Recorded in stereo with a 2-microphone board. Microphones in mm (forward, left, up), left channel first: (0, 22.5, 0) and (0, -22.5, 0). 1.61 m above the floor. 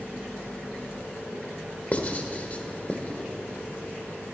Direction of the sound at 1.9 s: 35° left (ahead or behind).